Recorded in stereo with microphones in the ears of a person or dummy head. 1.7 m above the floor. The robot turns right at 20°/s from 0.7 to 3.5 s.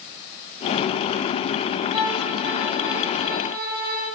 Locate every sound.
1.9 s a violin: 160° right, 6.5 m; by 4.1 s 130° right, 6.5 m